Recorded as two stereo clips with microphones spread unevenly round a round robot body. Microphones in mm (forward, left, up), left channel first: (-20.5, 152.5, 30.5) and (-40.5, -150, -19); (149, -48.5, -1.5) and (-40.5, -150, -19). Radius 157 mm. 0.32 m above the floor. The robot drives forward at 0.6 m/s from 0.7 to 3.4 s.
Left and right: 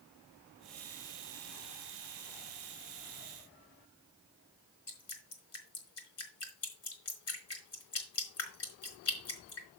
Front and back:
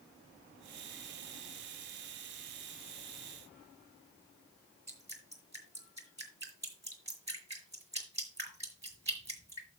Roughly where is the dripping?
Behind left.